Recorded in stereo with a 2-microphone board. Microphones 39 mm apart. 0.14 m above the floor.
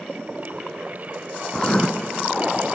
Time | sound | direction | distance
1.5 | writing | 25° left (ahead or behind) | 1.0 m